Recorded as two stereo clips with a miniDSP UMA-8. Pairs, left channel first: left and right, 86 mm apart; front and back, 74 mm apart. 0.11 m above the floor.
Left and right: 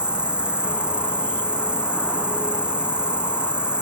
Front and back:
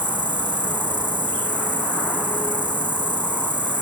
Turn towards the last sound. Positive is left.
turn(degrees=-170)